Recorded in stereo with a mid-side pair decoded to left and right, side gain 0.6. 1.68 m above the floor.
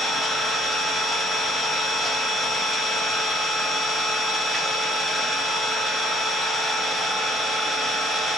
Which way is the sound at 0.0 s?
5° right.